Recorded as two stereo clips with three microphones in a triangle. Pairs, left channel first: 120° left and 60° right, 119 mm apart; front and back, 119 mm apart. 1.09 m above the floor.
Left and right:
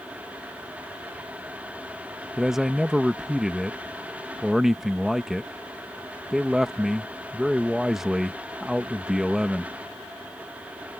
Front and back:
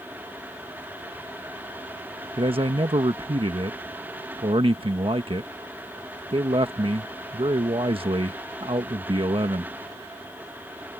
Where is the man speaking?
145° right.